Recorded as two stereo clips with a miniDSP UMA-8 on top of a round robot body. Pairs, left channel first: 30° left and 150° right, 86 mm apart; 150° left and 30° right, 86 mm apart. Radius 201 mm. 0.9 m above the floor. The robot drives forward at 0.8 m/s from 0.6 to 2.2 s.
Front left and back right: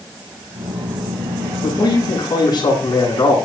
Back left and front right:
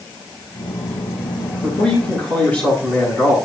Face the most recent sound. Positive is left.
turn(degrees=75)